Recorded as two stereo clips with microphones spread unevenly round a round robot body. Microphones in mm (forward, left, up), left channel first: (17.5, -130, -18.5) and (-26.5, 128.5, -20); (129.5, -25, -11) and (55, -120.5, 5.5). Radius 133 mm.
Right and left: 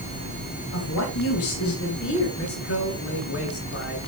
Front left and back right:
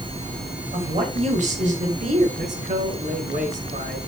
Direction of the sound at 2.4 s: 120° right.